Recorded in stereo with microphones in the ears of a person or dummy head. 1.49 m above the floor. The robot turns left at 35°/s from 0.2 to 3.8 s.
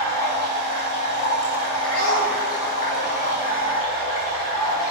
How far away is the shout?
About 3 m.